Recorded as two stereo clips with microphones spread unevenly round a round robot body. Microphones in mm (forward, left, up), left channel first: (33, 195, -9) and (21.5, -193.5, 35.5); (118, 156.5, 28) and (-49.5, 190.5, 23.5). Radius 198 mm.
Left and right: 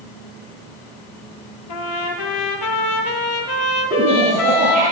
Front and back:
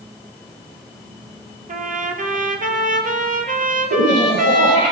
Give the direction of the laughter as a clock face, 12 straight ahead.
5 o'clock.